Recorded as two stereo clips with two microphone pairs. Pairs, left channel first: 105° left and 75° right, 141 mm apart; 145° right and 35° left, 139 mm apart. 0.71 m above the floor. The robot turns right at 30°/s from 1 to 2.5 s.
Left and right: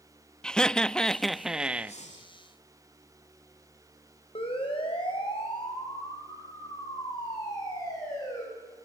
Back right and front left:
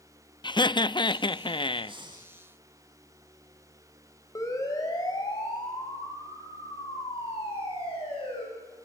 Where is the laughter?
165° right, 0.5 m; by 2.0 s 140° right, 0.5 m.